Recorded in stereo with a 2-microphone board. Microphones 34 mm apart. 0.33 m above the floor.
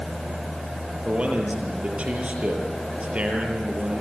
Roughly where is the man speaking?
Right.